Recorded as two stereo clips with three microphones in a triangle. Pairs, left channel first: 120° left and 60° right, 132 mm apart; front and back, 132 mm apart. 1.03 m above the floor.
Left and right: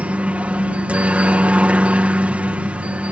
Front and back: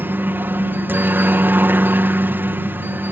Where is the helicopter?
125° right.